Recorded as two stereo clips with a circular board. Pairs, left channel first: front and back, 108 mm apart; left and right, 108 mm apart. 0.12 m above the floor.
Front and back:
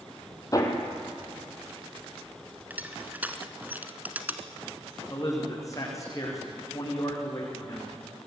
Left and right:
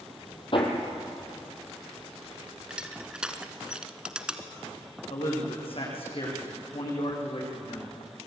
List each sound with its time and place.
0.5 s hammering: 55° left, 3.5 m
2.7 s crushing: 150° right, 1.7 m
5.1 s a man speaking: 60° left, 9 m